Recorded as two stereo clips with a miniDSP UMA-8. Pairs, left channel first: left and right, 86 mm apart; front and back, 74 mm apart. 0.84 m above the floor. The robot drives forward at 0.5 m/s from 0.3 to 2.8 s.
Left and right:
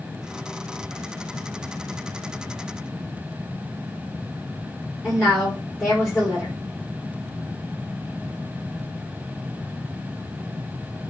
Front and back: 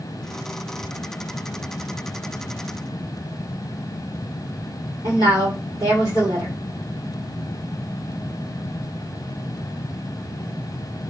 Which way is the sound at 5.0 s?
175° right.